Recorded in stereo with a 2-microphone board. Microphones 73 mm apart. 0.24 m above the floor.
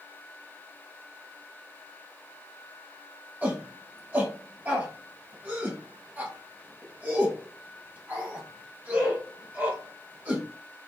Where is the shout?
25° right (ahead or behind), 1.2 m.